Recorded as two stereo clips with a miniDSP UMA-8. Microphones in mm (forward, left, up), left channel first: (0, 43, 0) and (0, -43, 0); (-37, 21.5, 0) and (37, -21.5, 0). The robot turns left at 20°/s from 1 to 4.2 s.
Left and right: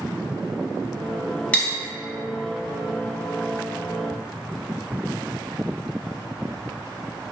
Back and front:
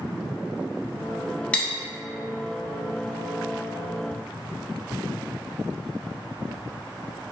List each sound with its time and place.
1.5 s cutlery clinking: 115° left, 0.6 m